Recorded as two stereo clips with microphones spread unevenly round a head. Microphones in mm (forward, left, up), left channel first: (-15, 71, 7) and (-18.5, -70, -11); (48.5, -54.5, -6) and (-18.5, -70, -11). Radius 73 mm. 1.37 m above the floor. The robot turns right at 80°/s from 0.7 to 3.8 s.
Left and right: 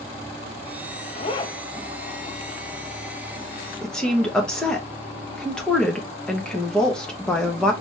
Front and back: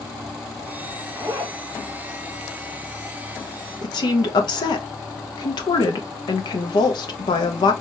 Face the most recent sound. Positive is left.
turn(degrees=5)